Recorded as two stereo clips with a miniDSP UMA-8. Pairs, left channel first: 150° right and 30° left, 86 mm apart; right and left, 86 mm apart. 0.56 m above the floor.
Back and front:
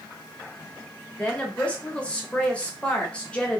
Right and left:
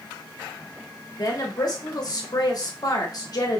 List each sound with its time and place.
1.2 s a woman speaking: 75° right, 0.9 m